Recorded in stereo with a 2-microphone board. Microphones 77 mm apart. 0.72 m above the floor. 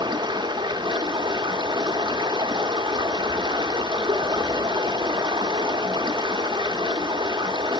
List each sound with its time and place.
0.0 s running water: 80° right, 0.8 m